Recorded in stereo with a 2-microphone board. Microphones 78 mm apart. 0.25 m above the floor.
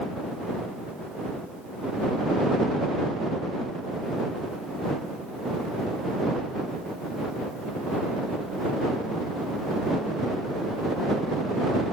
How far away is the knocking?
I don't hear knocking.